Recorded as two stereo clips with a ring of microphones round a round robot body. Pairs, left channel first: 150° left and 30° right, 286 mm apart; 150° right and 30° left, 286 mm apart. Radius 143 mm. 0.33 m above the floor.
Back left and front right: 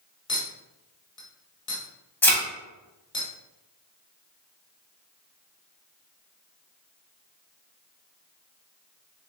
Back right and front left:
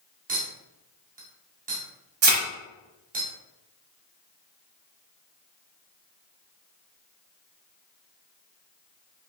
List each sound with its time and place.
0.3 s a clink: 80° left, 1.2 m
2.2 s a thud: 65° left, 1.1 m